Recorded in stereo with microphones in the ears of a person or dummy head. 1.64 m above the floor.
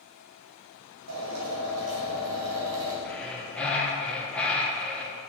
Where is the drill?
80° right, 3 m.